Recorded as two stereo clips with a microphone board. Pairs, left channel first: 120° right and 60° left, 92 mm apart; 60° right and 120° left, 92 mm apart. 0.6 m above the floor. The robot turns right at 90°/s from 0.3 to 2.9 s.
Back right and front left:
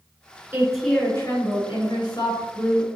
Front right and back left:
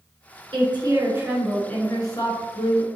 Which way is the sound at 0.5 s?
120° left.